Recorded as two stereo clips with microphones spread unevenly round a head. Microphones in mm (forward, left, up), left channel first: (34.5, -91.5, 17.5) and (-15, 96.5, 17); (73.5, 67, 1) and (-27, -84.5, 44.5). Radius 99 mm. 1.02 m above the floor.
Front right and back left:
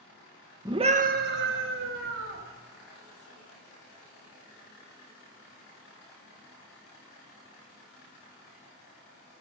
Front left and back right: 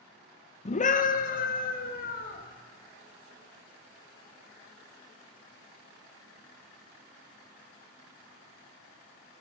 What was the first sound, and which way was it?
A scream, 35° left.